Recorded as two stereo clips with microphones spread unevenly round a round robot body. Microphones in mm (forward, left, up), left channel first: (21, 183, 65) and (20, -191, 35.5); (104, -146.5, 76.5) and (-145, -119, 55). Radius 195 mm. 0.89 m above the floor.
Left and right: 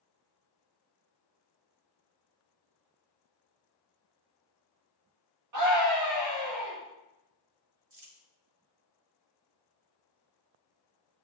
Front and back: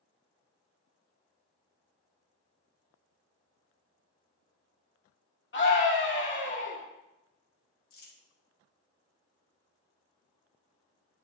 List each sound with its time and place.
5.5 s a scream: 50° right, 2.5 m
7.9 s crumpling: 40° right, 3 m